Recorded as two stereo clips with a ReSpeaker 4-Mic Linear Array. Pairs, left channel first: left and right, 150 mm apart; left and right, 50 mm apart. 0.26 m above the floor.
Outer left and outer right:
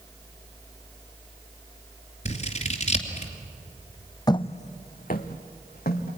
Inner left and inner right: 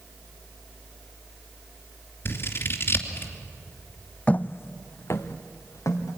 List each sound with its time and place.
2.2 s scissors: 50° left (ahead or behind), 2.5 m
4.3 s footsteps: 25° left (ahead or behind), 0.7 m; by 6.2 s 85° left, 3 m